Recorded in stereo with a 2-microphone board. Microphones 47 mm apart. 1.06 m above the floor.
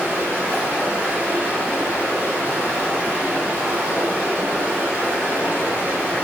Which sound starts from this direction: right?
Running water, at 0.0 s.